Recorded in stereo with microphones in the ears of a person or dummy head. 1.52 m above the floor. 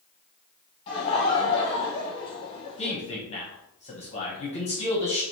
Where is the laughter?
25° left (ahead or behind), 1.3 m.